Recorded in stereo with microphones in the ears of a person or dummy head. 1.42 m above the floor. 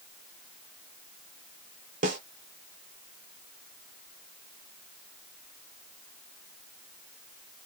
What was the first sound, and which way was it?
A snare drum, 45° right (ahead or behind).